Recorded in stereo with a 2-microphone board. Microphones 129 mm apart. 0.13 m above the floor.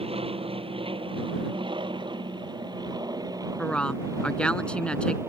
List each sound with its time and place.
0.0 s an aircraft: 45° right (ahead or behind); by 5.3 s 20° right (ahead or behind)
3.6 s a woman speaking: 10° left (ahead or behind)